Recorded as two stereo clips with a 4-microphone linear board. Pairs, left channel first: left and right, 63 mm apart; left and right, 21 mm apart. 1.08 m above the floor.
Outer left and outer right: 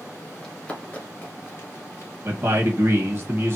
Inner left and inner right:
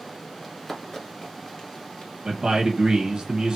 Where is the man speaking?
40° right (ahead or behind), 1.1 m.